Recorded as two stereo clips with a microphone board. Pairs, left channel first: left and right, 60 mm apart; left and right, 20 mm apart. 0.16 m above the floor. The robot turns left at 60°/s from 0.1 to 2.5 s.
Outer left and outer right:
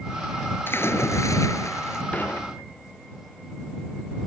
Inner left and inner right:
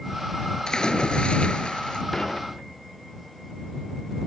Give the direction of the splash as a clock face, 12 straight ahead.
7 o'clock.